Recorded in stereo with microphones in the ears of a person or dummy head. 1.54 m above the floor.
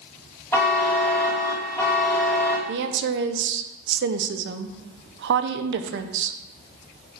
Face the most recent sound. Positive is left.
turn(degrees=-75)  # may be behind; listen again after turning